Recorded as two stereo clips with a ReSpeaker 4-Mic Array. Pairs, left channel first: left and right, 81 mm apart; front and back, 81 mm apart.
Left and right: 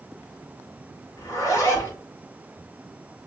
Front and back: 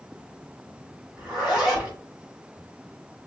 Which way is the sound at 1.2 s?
105° left.